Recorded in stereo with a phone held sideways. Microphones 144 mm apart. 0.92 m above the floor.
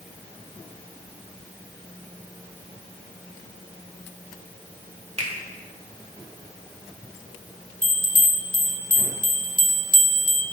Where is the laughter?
No laughter in this recording.